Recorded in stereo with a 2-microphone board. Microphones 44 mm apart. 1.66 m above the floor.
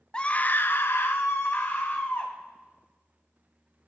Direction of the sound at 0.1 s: 20° left (ahead or behind).